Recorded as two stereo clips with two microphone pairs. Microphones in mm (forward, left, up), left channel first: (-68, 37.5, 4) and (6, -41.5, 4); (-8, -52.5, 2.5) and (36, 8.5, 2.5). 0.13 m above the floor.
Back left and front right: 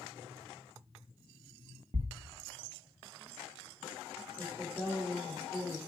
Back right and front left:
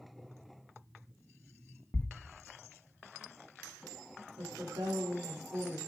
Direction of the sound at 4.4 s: 50° left.